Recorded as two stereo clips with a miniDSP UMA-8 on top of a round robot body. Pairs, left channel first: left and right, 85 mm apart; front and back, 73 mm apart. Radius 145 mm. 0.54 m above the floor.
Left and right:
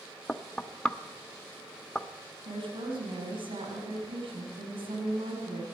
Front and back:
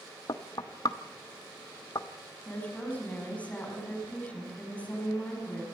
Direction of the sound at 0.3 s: 10° left.